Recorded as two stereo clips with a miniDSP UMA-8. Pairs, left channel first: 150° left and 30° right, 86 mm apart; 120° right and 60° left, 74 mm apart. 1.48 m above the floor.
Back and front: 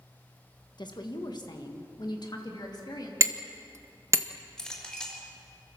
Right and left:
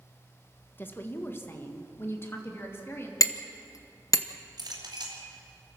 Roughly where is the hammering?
Right.